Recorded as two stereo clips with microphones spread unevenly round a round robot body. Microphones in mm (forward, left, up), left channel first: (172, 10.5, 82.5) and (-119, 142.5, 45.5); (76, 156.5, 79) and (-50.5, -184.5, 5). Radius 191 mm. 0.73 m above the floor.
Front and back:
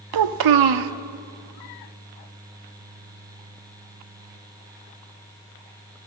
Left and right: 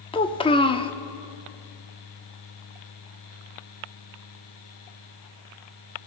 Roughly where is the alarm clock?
I don't hear an alarm clock.